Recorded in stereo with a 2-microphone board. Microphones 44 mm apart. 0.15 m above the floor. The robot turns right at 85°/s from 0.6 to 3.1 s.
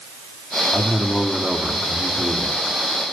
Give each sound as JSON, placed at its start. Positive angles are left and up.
{"t": 0.7, "sound": "a man speaking", "azimuth_deg": 115, "distance_m": 4.0}